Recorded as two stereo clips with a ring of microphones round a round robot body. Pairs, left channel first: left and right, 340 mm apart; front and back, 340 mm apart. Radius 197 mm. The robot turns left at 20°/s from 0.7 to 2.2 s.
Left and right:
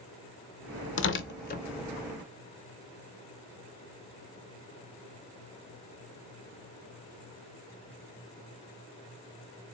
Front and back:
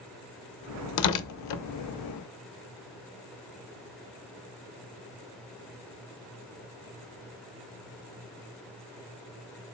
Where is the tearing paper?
35° left, 0.6 m; by 1.6 s 25° left, 0.6 m.